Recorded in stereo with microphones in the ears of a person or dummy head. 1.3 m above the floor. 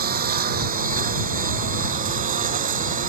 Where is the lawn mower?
50° right (ahead or behind); by 3.1 s 45° right (ahead or behind).